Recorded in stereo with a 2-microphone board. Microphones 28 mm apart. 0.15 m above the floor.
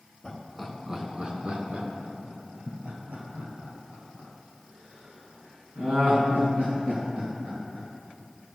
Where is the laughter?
10° left (ahead or behind), 1.4 m; by 7.9 s 70° right (ahead or behind), 8 m.